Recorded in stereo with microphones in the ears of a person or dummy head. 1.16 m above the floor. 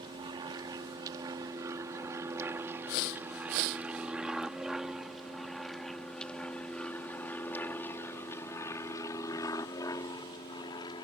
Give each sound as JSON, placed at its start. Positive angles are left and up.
{"t": 0.0, "sound": "an aircraft", "side_deg": -25}